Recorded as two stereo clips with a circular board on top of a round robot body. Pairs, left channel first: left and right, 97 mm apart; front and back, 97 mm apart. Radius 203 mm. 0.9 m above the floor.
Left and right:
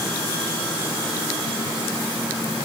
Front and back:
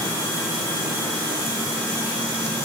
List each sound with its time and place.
Only background noise.